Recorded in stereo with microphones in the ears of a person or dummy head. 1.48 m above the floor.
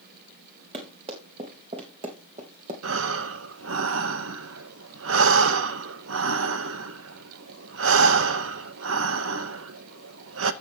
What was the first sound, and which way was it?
Running footsteps, 35° right (ahead or behind).